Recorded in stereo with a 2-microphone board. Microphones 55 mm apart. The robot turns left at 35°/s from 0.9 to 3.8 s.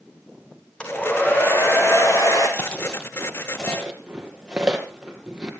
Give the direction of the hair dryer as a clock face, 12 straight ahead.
7 o'clock.